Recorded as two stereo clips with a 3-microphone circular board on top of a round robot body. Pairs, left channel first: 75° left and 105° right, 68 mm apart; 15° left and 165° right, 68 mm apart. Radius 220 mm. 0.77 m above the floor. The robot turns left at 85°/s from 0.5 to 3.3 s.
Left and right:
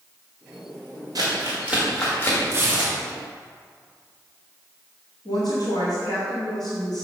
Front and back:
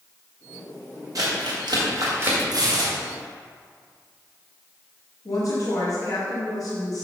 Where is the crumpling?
130° right, 1.6 m; by 2.4 s 120° left, 1.6 m.